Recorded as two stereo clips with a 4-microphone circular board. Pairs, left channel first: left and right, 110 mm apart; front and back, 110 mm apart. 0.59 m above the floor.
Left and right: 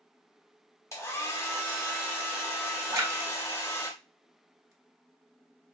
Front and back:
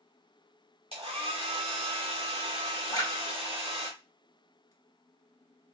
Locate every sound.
0.9 s a hair dryer: 155° left, 1.3 m
2.9 s a splash: 40° right, 1.1 m